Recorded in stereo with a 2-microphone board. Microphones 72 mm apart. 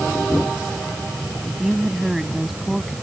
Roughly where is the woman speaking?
Centre.